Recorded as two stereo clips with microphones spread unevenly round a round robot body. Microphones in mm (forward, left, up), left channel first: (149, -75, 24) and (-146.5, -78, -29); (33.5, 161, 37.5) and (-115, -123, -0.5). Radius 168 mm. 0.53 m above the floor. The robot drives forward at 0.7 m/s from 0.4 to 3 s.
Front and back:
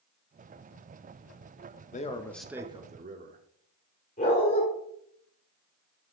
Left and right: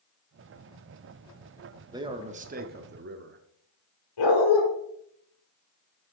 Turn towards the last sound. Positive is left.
turn(degrees=70)